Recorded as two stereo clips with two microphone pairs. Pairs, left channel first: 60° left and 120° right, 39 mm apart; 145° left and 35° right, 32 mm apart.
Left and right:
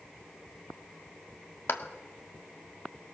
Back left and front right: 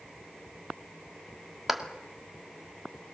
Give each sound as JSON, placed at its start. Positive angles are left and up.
{"t": 1.7, "sound": "a clap", "azimuth_deg": 50, "distance_m": 1.9}